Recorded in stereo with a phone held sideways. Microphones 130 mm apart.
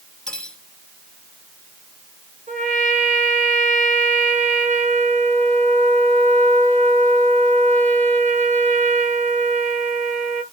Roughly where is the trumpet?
Right.